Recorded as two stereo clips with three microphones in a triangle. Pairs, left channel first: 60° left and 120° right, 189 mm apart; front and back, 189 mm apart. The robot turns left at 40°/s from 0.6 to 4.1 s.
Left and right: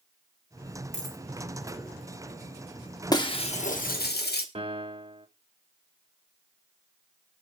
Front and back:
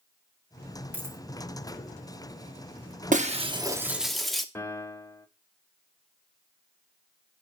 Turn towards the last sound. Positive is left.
turn(degrees=-70)